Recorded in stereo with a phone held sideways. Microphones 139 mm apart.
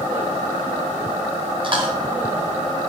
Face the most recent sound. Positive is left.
turn(degrees=-40)  # may be behind; listen again after turning